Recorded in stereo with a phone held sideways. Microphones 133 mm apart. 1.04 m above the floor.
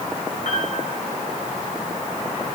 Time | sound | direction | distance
0.5 | a piano | 60° left (ahead or behind) | 7 m